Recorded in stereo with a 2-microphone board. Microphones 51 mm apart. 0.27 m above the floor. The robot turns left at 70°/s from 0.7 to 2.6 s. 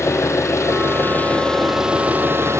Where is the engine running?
70° left, 3 m; by 2.6 s 65° right, 3 m.